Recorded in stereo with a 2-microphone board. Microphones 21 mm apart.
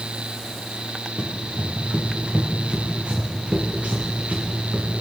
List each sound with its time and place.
1.2 s running footsteps: 20° right (ahead or behind), 2.5 m; by 4.9 s 85° right, 3 m